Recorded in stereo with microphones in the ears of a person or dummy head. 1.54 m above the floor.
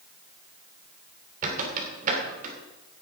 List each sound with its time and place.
1.4 s a squeak: 45° right (ahead or behind), 2.5 m